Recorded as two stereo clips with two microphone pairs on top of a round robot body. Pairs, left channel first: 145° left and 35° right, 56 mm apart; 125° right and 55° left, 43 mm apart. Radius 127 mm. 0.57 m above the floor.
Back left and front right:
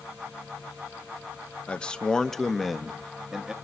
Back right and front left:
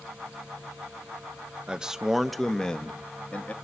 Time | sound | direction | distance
1.7 | a man speaking | 115° left | 1.0 m